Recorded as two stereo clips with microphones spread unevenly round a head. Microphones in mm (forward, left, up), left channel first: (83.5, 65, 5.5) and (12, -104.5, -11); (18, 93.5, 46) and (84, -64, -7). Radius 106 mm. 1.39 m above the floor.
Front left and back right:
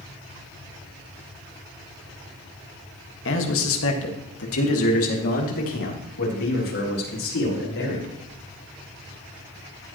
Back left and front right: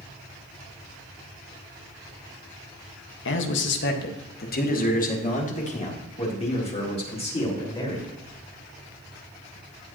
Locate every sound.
3.2 s a man speaking: 110° left, 1.6 m; by 8.1 s 55° left, 5 m